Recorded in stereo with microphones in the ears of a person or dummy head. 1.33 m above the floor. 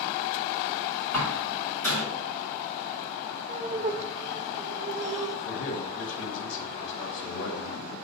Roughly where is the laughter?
Right.